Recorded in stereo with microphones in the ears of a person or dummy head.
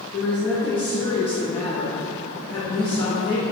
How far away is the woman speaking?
About 0.5 m.